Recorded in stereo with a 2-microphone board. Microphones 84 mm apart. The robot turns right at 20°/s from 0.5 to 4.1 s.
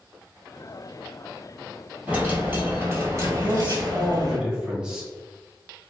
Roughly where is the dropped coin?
Behind.